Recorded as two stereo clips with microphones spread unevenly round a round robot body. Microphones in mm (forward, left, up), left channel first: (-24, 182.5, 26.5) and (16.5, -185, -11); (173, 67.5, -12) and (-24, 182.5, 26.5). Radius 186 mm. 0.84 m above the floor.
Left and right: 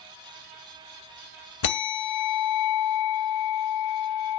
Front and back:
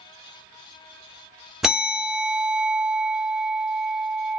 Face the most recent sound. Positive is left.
turn(degrees=65)